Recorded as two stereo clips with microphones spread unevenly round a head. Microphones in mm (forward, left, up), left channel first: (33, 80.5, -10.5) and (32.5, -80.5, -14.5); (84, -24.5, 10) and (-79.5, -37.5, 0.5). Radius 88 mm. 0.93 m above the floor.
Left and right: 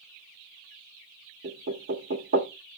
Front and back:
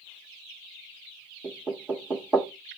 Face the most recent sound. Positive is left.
turn(degrees=-95)